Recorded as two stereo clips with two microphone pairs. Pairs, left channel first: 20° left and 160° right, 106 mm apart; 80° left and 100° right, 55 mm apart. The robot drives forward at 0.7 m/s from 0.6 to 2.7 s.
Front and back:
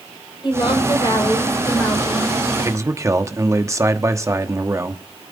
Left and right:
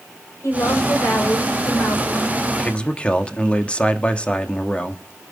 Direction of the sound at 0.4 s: 60° left.